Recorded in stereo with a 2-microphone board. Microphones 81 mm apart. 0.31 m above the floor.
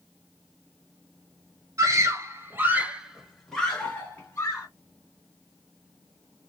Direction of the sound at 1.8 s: 45° right (ahead or behind).